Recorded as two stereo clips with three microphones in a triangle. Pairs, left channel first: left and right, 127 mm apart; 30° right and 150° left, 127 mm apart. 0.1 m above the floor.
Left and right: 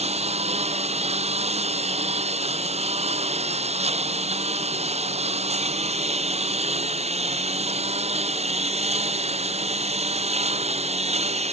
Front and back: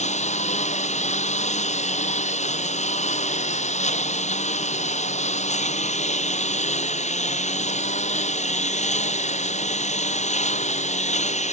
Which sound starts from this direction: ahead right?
A lawn mower, at 0.0 s.